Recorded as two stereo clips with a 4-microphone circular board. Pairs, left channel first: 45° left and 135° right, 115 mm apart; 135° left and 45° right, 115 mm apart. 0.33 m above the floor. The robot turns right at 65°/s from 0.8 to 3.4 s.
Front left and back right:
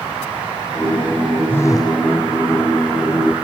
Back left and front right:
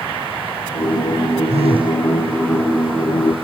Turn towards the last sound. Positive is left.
turn(degrees=95)